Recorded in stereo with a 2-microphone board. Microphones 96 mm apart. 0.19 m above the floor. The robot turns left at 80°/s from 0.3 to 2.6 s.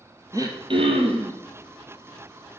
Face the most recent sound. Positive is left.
turn(degrees=145)